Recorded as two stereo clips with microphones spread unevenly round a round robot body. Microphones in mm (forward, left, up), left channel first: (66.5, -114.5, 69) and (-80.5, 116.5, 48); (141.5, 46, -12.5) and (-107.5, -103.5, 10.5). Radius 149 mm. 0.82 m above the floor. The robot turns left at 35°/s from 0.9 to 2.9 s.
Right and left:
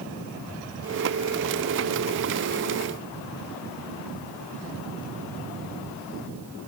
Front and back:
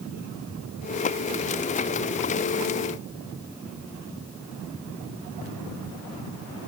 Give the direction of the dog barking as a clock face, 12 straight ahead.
I don't hear a dog barking.